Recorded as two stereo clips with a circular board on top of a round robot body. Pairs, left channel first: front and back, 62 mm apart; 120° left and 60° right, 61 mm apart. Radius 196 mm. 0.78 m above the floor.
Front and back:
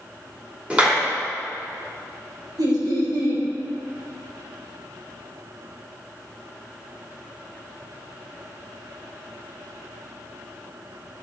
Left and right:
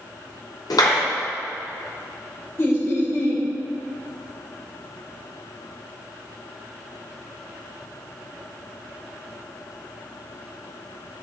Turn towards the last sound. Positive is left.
turn(degrees=170)